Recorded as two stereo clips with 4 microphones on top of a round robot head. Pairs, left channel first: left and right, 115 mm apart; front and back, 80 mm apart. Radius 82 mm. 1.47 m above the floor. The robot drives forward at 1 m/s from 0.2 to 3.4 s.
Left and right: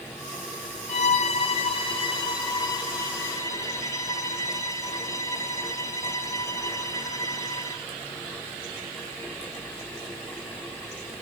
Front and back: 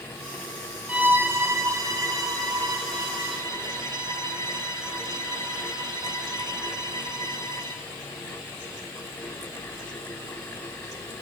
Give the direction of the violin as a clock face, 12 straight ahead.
8 o'clock.